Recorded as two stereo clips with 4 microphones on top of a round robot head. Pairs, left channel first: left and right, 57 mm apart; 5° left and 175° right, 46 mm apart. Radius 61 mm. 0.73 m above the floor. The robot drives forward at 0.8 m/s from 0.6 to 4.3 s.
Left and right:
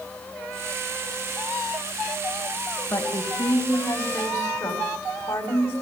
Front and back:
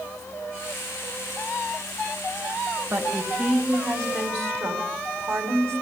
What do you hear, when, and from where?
2.9 s a woman speaking: 145° left, 4.5 m; by 5.8 s 150° left, 5.5 m